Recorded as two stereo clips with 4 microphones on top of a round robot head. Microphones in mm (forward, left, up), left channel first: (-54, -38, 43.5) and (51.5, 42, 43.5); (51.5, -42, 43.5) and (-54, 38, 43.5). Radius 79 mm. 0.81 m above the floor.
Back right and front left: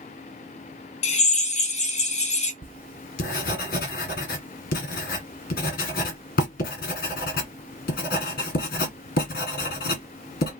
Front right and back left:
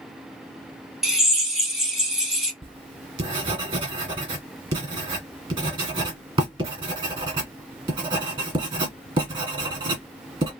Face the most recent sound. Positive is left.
turn(degrees=-160)